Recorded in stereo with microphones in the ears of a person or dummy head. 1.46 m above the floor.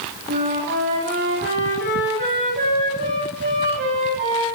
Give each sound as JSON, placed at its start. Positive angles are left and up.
{"t": 0.3, "sound": "a flute", "side_deg": -50, "distance_m": 8.5}